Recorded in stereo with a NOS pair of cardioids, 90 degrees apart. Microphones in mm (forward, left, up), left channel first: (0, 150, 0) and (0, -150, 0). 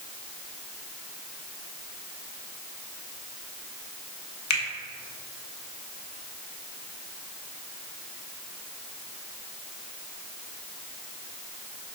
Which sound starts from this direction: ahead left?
A finger snap, at 4.5 s.